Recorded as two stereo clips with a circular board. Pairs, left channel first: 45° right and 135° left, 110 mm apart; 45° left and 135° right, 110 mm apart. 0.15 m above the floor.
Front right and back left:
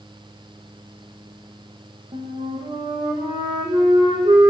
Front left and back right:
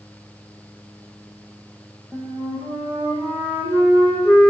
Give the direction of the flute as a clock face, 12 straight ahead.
7 o'clock.